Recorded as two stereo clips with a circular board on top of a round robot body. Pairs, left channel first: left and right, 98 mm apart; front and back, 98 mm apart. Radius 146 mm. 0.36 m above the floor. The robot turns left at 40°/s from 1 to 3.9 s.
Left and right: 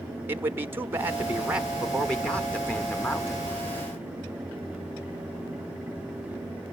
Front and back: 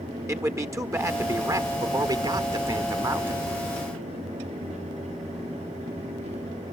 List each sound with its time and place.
0.3 s a man speaking: 145° right, 1.3 m; by 3.5 s 115° left, 1.3 m